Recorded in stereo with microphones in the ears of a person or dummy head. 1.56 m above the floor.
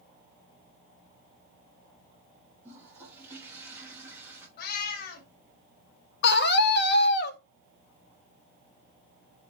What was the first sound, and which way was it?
A toilet flushing, 10° right (ahead or behind).